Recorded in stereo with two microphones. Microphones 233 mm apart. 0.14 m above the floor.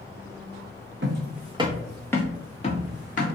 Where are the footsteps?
55° right (ahead or behind), 0.6 m; by 3.2 s 35° left (ahead or behind), 1.2 m.